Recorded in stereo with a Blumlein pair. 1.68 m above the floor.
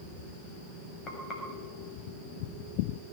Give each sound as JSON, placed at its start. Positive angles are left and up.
{"t": 1.1, "sound": "frying", "azimuth_deg": 25, "distance_m": 6.5}